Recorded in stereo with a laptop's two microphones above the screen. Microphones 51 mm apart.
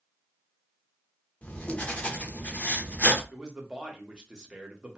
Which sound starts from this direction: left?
Writing, at 1.4 s.